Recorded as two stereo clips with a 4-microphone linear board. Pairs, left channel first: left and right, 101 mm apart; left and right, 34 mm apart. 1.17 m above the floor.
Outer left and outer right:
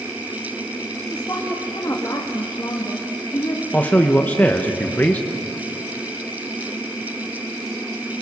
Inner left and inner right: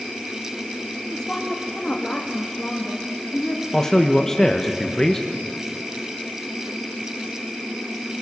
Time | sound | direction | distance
1.1 | a woman speaking | 30° left (ahead or behind) | 1.6 m
3.7 | a man speaking | 15° left (ahead or behind) | 1.0 m